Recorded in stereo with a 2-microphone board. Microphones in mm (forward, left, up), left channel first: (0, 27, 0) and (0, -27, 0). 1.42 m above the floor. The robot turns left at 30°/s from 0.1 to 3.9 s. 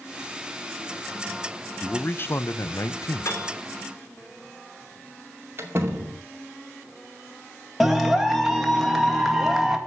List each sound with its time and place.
1.8 s a man speaking: 150° left, 0.6 m; by 3.3 s 105° left, 0.6 m
3.2 s a piano: 55° left (ahead or behind), 3 m; by 3.6 s 65° left (ahead or behind), 3 m
5.6 s a door slam: 45° right (ahead or behind), 2.5 m
7.8 s a clap: centre (ahead or behind), 2 m